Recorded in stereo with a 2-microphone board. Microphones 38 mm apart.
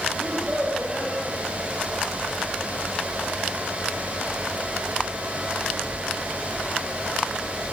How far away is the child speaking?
About 6 m.